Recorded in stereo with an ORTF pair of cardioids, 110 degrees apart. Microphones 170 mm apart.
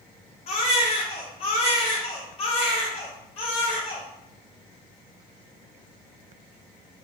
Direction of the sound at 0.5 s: 40° left.